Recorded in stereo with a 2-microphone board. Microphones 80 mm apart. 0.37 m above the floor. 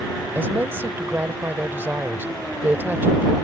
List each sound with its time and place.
0.3 s a woman speaking: 25° right (ahead or behind)